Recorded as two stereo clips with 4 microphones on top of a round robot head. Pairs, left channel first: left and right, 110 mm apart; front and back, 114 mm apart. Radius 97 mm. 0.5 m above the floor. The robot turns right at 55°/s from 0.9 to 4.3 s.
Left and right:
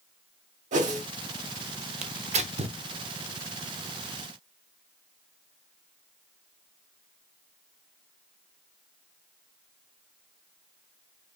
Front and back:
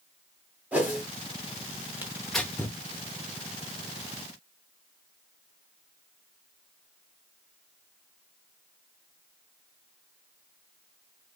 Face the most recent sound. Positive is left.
turn(degrees=20)